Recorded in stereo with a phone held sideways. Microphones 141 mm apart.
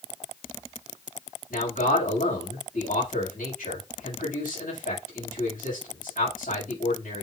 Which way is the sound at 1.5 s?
85° left.